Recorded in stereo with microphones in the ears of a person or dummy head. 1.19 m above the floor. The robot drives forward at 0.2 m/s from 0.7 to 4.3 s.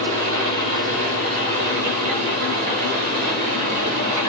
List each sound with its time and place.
0.0 s an engine running: 45° right (ahead or behind), 8 m; by 4.3 s 50° right (ahead or behind), 7.5 m